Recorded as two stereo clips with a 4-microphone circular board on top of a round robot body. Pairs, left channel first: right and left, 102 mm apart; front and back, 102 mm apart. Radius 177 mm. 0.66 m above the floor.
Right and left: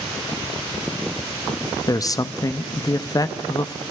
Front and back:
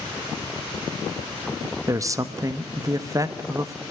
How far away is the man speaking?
About 1.5 m.